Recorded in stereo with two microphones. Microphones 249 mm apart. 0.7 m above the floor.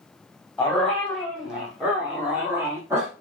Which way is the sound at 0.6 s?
5° left (ahead or behind).